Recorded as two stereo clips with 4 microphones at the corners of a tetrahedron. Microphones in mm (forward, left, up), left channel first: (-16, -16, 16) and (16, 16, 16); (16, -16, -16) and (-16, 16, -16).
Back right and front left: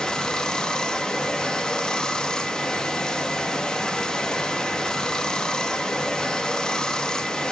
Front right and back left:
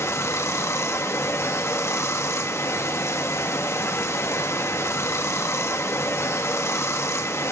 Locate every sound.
0.0 s running water: 60° right, 1.4 m